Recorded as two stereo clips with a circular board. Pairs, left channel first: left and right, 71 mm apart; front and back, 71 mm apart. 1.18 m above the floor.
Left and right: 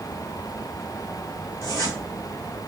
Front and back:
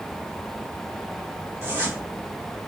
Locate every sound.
1.6 s a zipper: 125° left, 2.5 m